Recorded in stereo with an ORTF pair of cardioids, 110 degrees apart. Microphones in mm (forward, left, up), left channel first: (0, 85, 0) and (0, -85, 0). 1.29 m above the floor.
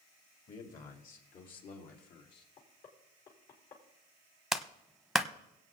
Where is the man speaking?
50° left, 3 m; by 2.5 s 65° left, 3 m.